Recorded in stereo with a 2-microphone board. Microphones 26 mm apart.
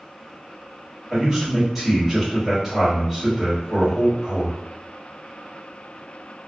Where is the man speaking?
10° right (ahead or behind), 1.6 m.